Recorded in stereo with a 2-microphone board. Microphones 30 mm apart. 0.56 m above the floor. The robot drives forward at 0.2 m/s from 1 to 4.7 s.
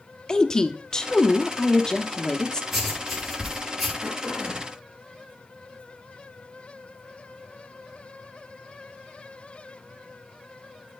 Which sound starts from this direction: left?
A woman speaking, at 0.3 s.